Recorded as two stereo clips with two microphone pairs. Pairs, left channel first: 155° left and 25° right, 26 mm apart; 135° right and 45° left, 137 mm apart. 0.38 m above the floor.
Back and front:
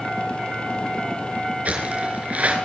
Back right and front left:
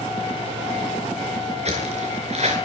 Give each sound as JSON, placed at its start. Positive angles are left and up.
{"t": 1.6, "sound": "footsteps", "azimuth_deg": 5, "distance_m": 4.5}